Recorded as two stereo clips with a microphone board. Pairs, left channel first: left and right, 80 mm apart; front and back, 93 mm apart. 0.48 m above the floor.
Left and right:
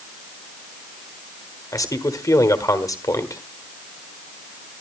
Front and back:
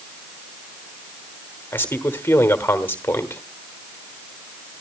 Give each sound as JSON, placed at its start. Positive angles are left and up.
{"t": 1.7, "sound": "a man speaking", "azimuth_deg": 60, "distance_m": 1.4}